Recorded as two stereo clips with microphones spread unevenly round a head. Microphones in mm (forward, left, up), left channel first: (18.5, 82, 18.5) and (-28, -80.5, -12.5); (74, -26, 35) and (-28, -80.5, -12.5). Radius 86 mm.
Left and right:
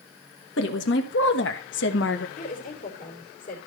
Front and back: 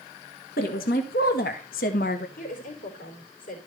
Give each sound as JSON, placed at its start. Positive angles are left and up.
{"t": 0.6, "sound": "a woman speaking", "azimuth_deg": 50, "distance_m": 1.8}
{"t": 2.4, "sound": "a woman speaking", "azimuth_deg": 25, "distance_m": 3.5}